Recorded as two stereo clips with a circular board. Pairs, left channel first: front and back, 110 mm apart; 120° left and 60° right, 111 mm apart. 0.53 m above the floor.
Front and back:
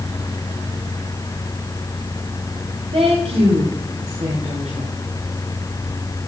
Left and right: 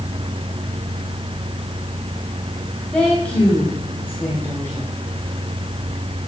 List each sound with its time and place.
2.9 s a woman speaking: 160° right, 3 m; by 5.0 s 170° right, 4 m